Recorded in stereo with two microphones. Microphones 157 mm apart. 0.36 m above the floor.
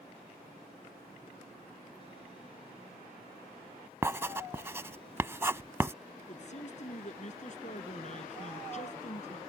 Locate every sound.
4.0 s writing: 15° right (ahead or behind)
6.3 s a man speaking: 50° left (ahead or behind)